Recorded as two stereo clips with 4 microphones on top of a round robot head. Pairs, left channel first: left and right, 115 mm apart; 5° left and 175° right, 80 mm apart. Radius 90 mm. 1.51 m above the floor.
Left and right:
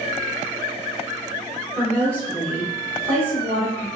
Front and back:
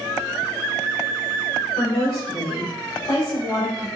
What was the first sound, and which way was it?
A woman speaking, 20° right.